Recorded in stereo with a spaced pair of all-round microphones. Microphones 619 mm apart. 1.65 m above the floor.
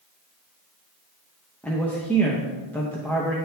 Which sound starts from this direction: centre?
A man speaking, at 1.6 s.